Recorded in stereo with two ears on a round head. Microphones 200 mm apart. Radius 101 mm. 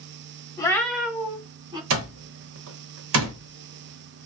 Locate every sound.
0.6 s a cat meowing: 20° left (ahead or behind), 0.7 m; by 1.8 s 25° right (ahead or behind), 1.2 m
1.9 s an alarm clock: 65° right (ahead or behind), 0.7 m